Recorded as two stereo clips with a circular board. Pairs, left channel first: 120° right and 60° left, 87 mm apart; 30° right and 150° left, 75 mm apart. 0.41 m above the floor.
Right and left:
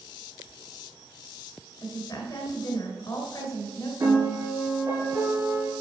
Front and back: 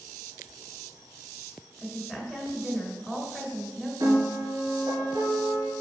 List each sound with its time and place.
1.8 s a woman speaking: 130° right, 1.9 m
4.0 s a piano: 110° left, 3 m